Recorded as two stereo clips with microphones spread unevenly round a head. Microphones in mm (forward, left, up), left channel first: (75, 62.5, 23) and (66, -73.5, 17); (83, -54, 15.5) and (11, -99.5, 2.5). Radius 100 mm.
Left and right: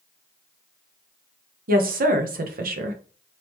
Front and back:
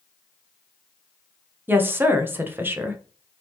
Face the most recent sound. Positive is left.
turn(degrees=-80)